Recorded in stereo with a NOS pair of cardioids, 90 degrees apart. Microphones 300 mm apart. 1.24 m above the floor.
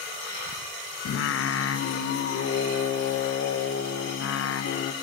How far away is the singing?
About 0.8 m.